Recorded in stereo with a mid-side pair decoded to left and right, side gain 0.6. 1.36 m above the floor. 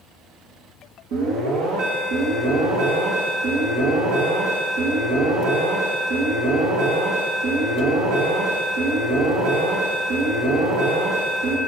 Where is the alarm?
70° right, 2 m.